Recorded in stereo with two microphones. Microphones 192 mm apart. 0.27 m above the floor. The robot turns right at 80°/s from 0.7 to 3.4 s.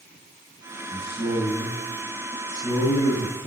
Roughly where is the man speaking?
Left.